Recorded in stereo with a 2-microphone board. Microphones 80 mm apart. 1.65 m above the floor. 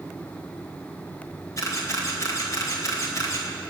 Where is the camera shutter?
45° left (ahead or behind), 2.5 m.